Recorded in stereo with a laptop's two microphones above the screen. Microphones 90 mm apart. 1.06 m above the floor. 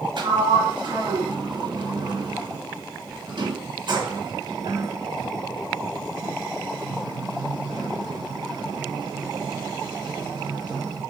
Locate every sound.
0.2 s a sliding door: 60° right (ahead or behind), 1.8 m